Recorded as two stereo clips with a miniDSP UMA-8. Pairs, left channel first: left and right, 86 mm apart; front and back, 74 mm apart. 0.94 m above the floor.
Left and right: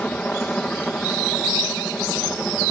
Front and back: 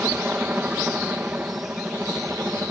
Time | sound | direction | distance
0.0 | a helicopter | 145° left | ?